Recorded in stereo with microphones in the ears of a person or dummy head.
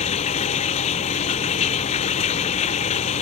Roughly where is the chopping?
No chopping in this recording.